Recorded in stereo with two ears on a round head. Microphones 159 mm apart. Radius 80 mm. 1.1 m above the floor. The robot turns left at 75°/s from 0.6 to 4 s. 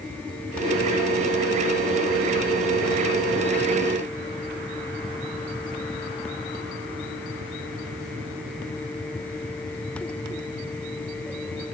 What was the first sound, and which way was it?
Only background noise.